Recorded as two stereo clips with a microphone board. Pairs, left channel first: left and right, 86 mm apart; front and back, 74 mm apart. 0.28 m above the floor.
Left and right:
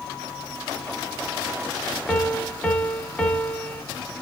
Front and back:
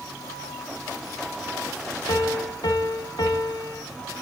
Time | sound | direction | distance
2.1 | a piano | 10° left | 0.7 m